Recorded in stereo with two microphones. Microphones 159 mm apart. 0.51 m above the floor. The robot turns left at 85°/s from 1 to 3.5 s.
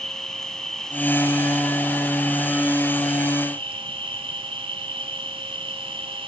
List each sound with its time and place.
0.0 s an insect: 175° left, 1.4 m; by 6.3 s 35° right, 1.4 m